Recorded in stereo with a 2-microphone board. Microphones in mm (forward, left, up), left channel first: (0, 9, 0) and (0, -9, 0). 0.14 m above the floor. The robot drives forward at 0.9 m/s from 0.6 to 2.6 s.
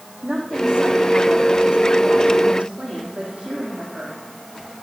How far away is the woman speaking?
About 6.5 m.